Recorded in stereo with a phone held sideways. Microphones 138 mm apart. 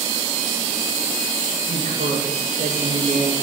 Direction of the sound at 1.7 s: 80° right.